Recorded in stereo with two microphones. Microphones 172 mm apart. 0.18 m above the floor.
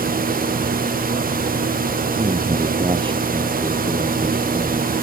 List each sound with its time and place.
2.2 s a man speaking: 30° right (ahead or behind); by 4.9 s 25° right (ahead or behind)